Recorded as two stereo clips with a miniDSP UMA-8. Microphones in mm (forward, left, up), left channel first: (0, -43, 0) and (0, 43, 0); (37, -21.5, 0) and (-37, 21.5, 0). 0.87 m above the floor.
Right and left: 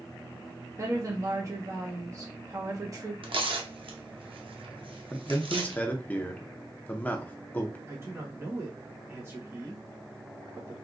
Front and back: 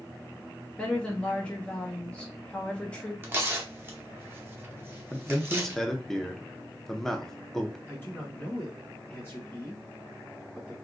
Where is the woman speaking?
45° left, 1.2 m.